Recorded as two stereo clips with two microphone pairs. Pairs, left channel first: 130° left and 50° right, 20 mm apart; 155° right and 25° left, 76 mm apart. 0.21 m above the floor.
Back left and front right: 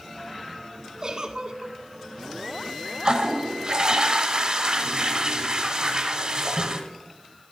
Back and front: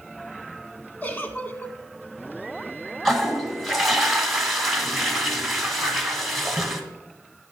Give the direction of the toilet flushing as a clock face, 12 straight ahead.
2 o'clock.